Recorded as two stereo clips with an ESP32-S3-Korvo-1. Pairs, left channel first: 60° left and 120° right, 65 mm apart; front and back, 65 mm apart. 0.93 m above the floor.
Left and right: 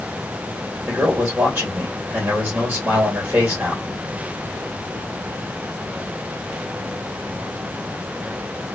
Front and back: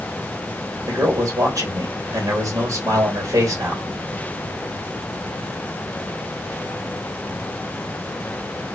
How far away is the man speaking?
About 1.7 m.